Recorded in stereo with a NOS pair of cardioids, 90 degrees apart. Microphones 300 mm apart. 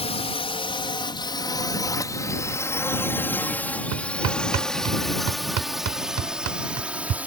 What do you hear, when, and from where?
0.0 s a drone: 20° left; by 7.3 s 5° right
3.9 s hammering: 60° right